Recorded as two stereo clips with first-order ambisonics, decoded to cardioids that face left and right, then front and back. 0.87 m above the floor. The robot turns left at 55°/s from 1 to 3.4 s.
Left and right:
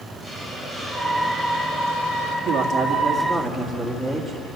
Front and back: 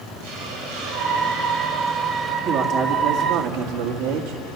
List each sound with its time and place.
0.2 s a hiss: 170° right, 4 m; by 2.4 s 115° left, 4 m
2.5 s a man speaking: 140° right, 2 m; by 4.4 s 165° left, 2 m